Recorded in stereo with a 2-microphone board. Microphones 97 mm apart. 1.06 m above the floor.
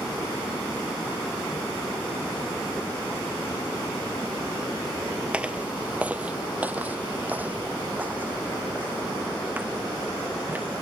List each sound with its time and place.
5.3 s footsteps: 10° right (ahead or behind); by 10.7 s 20° right (ahead or behind)